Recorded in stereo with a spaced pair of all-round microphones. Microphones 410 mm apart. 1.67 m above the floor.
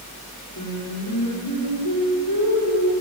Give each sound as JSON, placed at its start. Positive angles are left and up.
{"t": 0.6, "sound": "singing", "side_deg": 60, "distance_m": 6.5}